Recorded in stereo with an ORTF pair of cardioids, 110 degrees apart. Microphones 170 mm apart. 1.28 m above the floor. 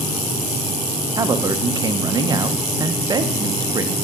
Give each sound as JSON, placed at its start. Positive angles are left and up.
{"t": 1.2, "sound": "a man speaking", "azimuth_deg": -25, "distance_m": 0.6}